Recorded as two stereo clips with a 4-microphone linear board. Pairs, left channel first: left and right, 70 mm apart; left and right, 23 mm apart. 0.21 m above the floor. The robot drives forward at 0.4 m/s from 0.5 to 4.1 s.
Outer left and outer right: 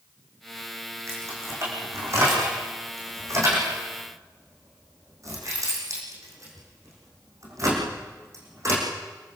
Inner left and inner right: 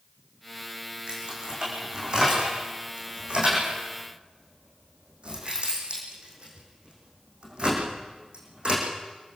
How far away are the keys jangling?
About 9 m.